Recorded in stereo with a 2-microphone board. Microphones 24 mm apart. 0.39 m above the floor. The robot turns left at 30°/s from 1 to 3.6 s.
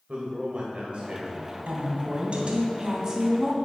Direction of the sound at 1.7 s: 110° right.